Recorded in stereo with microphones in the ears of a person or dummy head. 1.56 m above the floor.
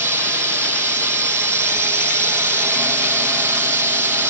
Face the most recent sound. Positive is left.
turn(degrees=-15)  # may be behind; listen again after turning